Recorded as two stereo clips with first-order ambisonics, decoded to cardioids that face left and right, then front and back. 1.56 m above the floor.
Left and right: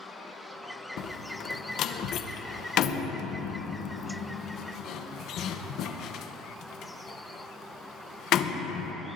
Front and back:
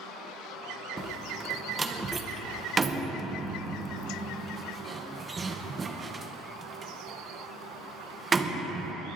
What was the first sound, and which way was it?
A door slam, 115° left.